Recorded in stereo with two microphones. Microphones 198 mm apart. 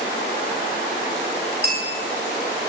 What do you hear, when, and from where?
1.6 s a bell: 50° right (ahead or behind), 9.5 m